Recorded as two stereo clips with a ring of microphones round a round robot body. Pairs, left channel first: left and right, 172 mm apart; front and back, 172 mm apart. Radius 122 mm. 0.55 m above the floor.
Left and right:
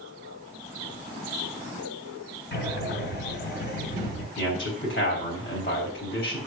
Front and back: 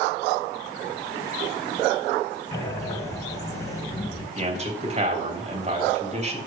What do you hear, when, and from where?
2.5 s breathing: 75° left, 2.5 m
4.4 s a man speaking: 135° left, 3.5 m